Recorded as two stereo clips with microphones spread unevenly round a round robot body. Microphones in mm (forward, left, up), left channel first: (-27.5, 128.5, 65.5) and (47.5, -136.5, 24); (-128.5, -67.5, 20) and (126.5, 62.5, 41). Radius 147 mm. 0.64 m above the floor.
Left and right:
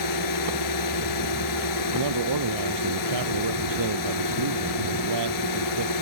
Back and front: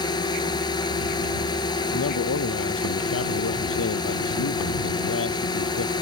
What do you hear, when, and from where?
0.0 s a drone: 130° left
1.9 s a man speaking: 105° right